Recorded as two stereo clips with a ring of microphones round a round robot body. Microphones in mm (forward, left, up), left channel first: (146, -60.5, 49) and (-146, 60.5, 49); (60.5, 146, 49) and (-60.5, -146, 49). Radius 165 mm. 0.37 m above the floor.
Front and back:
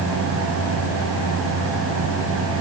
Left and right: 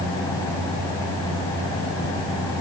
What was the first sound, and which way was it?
Only background noise.